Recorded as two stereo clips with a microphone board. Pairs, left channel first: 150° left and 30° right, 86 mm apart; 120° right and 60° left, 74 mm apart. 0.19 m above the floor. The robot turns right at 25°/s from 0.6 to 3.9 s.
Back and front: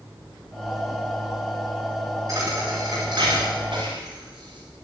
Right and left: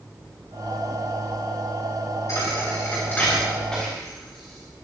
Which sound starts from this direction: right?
A thud, at 2.3 s.